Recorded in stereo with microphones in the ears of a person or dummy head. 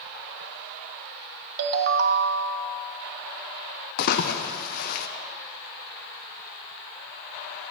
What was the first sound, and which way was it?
A ringtone, 60° right (ahead or behind).